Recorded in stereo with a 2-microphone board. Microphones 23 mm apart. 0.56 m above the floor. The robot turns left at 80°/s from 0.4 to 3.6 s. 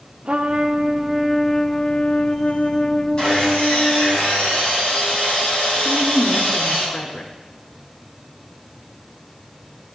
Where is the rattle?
I don't hear a rattle.